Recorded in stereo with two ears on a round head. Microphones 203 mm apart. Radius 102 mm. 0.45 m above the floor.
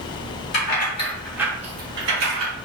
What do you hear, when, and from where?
0.5 s keys jangling: 45° left (ahead or behind), 1.1 m; by 2.5 s 60° right (ahead or behind), 1.4 m